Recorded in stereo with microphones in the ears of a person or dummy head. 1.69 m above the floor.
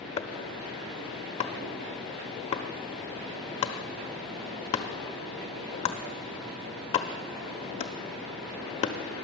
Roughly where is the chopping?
Left.